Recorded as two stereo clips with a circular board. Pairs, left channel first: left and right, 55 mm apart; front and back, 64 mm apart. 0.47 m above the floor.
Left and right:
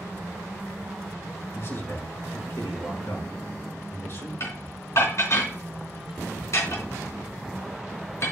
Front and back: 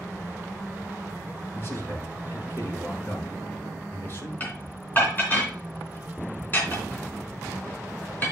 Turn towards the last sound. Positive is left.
turn(degrees=60)